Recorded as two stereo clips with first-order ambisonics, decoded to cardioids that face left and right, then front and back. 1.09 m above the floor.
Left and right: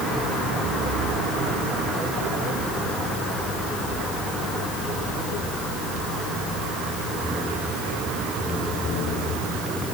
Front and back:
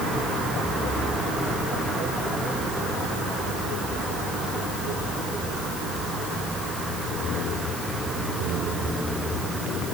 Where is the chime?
No chime in this recording.